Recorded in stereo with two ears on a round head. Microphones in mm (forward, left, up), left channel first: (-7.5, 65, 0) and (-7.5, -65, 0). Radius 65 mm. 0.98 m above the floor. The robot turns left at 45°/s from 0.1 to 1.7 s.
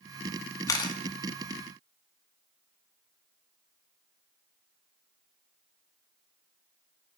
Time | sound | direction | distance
0.7 | a camera shutter | 20° left (ahead or behind) | 1.2 m